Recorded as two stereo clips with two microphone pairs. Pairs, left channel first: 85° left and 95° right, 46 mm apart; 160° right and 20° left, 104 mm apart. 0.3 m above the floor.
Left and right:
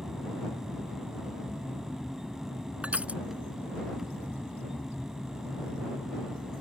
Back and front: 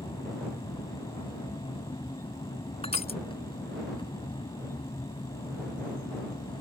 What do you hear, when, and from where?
0.0 s an aircraft: straight behind
2.8 s crushing: 155° right